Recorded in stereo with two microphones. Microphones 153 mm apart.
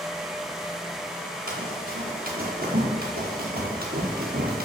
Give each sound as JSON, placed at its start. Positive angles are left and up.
{"t": 1.5, "sound": "running footsteps", "side_deg": -65, "distance_m": 4.0}